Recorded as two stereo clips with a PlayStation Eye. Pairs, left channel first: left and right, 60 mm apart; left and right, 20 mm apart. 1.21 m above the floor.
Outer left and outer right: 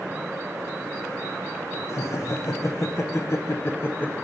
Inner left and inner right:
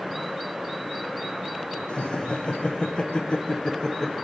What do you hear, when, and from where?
1.9 s laughter: 60° left (ahead or behind), 1.5 m; by 4.1 s 30° left (ahead or behind), 0.9 m